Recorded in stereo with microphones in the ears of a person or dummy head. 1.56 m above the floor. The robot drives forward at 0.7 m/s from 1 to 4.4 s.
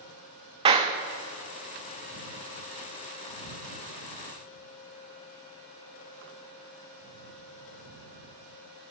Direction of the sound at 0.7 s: 30° right (ahead or behind).